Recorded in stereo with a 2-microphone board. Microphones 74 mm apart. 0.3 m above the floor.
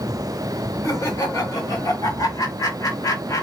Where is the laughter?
40° left (ahead or behind), 1.8 m.